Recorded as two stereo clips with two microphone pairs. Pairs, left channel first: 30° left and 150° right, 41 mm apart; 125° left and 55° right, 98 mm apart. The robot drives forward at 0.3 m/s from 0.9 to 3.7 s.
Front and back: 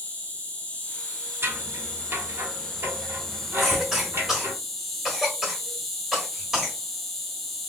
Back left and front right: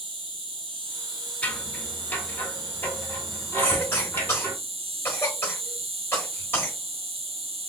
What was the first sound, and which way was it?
An insect, 35° right.